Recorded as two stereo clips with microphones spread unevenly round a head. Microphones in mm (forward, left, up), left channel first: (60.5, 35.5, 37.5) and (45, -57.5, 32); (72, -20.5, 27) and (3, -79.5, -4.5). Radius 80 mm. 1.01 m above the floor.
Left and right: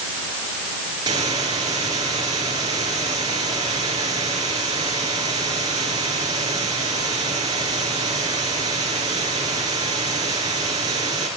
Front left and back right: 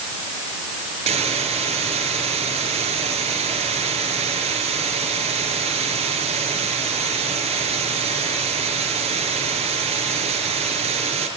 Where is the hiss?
165° right, 4.5 m.